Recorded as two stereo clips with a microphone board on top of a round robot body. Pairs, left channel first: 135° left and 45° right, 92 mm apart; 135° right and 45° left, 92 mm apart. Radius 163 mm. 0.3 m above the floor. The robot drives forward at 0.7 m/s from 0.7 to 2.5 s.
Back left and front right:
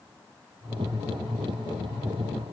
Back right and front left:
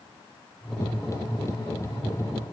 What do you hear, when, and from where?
Only background noise.